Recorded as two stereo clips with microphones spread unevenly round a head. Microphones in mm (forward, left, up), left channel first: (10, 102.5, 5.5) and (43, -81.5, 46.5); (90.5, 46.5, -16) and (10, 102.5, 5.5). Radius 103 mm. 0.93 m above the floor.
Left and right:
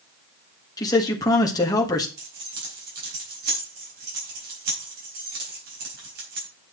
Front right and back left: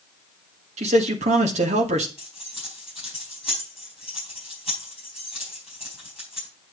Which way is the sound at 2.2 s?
130° right.